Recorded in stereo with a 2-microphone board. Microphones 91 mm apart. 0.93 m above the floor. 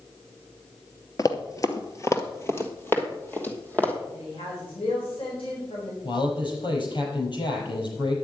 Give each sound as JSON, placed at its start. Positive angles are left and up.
{"t": 1.2, "sound": "running footsteps", "side_deg": 40, "distance_m": 1.1}
{"t": 4.1, "sound": "a woman speaking", "side_deg": 70, "distance_m": 3.5}
{"t": 6.0, "sound": "a man speaking", "side_deg": 60, "distance_m": 5.5}